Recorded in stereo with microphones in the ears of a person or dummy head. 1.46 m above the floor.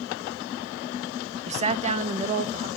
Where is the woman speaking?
30° right (ahead or behind), 0.6 m; by 2.7 s 35° right (ahead or behind), 1.8 m.